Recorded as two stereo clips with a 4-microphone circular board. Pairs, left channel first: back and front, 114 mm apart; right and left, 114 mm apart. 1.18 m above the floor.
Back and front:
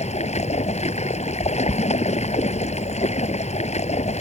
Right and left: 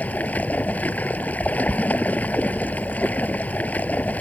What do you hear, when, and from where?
0.0 s running water: 165° right